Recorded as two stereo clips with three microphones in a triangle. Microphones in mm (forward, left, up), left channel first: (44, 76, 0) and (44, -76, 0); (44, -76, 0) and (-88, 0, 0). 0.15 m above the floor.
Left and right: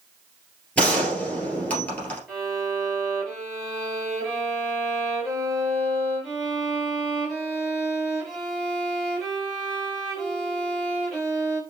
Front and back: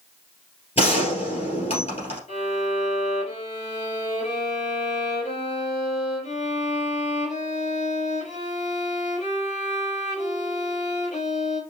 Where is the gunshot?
10° left, 2.5 m.